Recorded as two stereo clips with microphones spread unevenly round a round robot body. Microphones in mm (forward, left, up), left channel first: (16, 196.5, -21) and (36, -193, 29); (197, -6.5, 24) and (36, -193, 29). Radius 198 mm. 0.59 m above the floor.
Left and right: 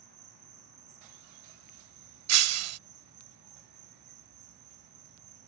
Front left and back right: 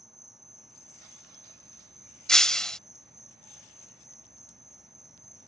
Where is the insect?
40° right.